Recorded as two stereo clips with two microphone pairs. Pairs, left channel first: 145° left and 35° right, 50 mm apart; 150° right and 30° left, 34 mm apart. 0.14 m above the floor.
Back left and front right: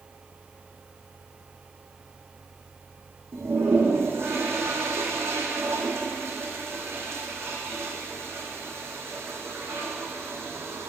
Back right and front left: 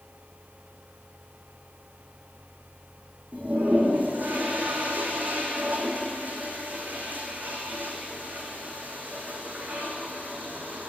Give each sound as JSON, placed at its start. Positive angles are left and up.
{"t": 3.3, "sound": "a toilet flushing", "azimuth_deg": 0, "distance_m": 2.5}